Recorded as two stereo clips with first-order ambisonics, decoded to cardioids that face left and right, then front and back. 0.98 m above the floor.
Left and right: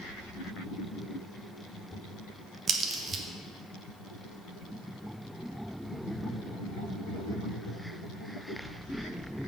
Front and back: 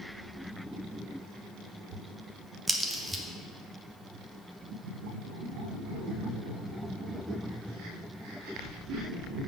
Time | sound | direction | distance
2.7 | a crack | 105° right | 0.6 m